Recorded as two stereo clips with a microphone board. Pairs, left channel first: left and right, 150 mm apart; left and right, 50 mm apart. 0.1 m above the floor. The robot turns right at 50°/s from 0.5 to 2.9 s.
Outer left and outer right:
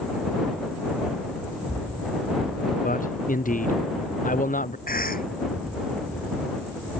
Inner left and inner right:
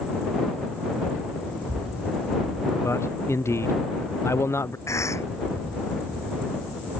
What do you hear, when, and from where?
2.8 s a man speaking: 70° left (ahead or behind); by 4.8 s 65° left (ahead or behind)
4.9 s a cough: 75° left (ahead or behind)